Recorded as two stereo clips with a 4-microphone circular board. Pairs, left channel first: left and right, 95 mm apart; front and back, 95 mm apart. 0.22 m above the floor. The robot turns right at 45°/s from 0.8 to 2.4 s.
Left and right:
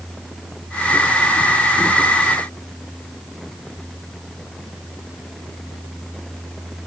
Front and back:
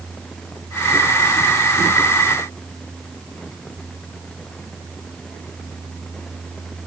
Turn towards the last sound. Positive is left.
No sound to turn to.